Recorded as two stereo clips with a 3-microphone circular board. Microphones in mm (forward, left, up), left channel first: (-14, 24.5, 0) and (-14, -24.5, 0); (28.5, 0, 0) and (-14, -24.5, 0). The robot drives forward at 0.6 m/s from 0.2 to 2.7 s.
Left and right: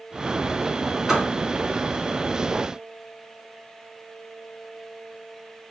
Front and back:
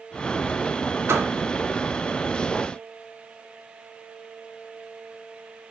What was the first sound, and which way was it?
A door slam, 170° right.